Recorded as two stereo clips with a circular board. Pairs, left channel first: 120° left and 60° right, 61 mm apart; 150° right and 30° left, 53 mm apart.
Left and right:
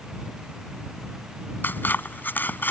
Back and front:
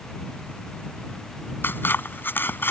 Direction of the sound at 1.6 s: 170° left.